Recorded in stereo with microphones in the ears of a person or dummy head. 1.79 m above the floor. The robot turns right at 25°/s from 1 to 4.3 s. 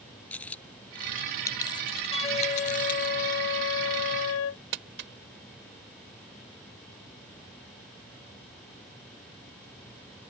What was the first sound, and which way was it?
A dropped coin, 10° left (ahead or behind).